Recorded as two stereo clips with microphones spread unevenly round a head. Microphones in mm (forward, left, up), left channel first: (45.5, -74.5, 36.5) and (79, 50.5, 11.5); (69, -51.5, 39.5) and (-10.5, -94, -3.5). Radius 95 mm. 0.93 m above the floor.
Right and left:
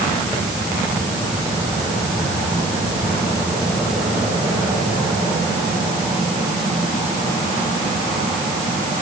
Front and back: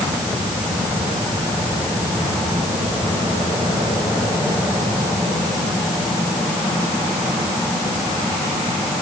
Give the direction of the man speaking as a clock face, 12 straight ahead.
No man speaking in this recording.